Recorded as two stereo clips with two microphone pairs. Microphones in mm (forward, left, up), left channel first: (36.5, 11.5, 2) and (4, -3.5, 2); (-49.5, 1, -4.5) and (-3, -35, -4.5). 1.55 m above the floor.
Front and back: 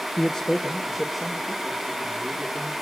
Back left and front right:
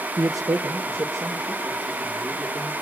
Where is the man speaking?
35° right, 0.8 m; by 2.7 s 80° right, 4 m.